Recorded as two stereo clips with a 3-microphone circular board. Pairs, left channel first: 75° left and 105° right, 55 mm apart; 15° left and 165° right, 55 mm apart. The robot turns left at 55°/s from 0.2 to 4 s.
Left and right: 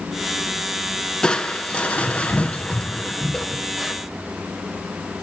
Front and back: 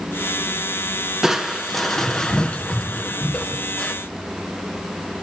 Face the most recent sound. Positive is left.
turn(degrees=-25)